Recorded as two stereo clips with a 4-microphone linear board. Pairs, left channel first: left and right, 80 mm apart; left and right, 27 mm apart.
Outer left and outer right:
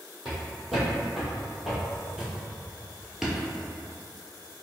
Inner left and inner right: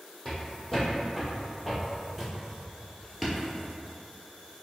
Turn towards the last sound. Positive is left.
turn(degrees=0)  # may be behind; listen again after turning